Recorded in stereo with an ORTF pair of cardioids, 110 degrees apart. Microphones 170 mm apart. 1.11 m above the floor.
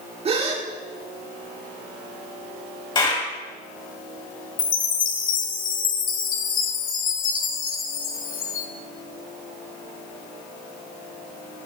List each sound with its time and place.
0.2 s a gasp: 35° right, 1.7 m
3.0 s a clap: 25° left, 4.5 m
4.6 s a chime: 50° left, 1.1 m